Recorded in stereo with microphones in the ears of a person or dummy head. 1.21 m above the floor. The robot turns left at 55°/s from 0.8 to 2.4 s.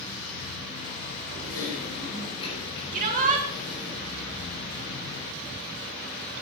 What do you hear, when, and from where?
1.4 s typing on a keyboard: 85° left, 3.5 m; by 3.9 s 30° left, 3.5 m
2.9 s a shout: 40° right (ahead or behind), 2.5 m